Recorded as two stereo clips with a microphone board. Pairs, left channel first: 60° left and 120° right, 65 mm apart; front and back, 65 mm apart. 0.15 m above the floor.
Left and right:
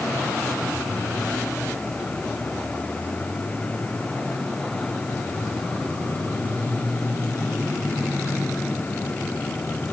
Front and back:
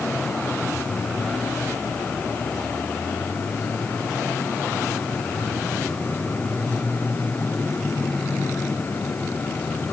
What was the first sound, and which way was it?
Only background noise.